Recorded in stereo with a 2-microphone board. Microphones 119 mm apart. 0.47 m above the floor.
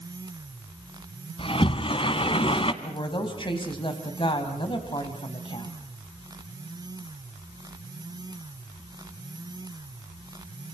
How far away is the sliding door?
About 1.4 m.